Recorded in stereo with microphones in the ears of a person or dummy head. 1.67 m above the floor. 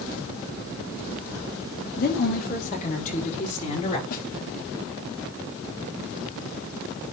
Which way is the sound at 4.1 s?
45° left (ahead or behind).